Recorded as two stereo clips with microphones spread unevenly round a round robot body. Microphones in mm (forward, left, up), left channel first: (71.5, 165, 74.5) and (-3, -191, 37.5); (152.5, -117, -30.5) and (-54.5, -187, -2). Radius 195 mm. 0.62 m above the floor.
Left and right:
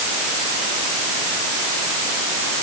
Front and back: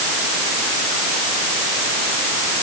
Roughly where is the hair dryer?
No hair dryer in this recording.